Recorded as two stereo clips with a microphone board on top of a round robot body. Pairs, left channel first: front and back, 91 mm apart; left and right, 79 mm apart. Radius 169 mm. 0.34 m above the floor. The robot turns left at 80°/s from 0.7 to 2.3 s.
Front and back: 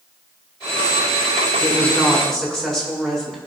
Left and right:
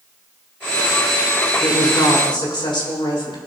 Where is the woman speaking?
140° left, 4 m; by 3.4 s 85° left, 4 m.